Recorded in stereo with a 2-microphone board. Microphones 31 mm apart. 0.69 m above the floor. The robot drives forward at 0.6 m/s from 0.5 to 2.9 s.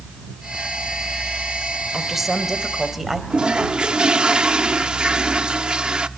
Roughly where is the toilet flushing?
Right.